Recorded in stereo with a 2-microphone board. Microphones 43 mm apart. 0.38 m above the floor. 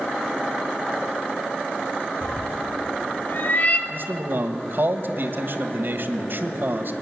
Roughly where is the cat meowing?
Left.